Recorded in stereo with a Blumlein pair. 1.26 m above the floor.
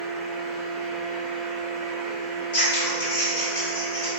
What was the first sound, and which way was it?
A fan, 25° right.